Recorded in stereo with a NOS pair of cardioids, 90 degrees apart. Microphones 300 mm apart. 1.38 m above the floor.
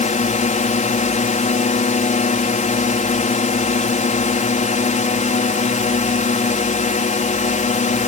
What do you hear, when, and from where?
0.0 s a drone: 25° left